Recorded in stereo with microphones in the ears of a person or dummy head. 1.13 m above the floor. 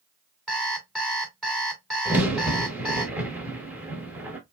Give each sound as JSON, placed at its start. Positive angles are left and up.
{"t": 0.5, "sound": "an alarm clock", "side_deg": 5, "distance_m": 2.5}
{"t": 2.0, "sound": "a crack", "side_deg": -10, "distance_m": 1.2}